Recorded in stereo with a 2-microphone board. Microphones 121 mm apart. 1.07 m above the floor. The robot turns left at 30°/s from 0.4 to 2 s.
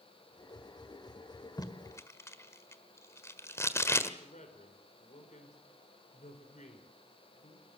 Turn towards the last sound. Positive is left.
turn(degrees=80)